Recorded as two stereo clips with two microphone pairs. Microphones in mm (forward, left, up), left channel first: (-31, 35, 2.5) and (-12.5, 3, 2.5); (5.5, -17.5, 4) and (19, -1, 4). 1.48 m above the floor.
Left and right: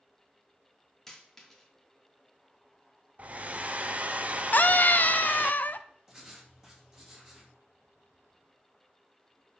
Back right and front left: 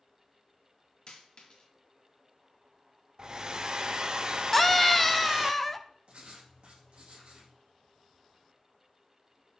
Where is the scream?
150° left, 0.5 m.